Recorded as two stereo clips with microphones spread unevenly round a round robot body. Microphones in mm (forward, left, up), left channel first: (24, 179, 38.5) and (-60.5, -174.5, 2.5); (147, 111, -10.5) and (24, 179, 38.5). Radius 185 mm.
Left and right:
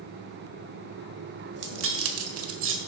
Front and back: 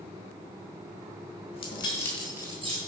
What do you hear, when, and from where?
1.5 s keys jangling: 50° right, 1.6 m; by 2.8 s 150° right, 1.3 m